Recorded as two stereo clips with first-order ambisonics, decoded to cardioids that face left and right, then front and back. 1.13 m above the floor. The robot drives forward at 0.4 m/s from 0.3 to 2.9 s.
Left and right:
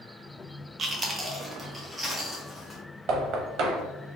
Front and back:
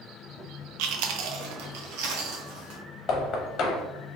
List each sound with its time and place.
0.8 s chewing: 160° right, 0.5 m; by 2.8 s 175° right, 1.3 m
3.1 s knocking: 55° right, 0.8 m